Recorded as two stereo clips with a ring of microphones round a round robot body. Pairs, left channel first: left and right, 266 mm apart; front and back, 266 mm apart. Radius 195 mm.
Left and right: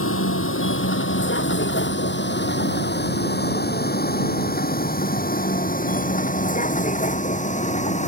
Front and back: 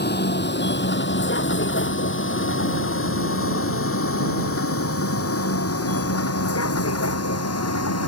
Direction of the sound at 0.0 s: 50° left.